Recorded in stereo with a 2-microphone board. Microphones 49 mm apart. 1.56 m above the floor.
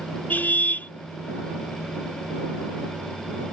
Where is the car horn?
40° left (ahead or behind).